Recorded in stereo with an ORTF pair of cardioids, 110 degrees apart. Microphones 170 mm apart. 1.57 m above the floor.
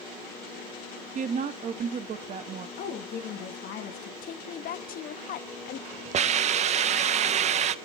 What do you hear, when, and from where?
1.1 s a woman speaking: 45° right, 0.9 m
2.8 s a woman speaking: 70° left, 2 m
4.2 s a woman speaking: 60° left, 0.8 m
6.1 s a hiss: 40° right, 0.6 m